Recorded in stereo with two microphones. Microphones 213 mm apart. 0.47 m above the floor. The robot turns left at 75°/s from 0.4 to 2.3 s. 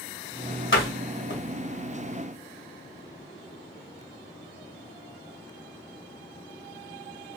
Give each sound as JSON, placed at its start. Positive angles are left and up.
{"t": 0.7, "sound": "a door slam", "side_deg": 65, "distance_m": 1.6}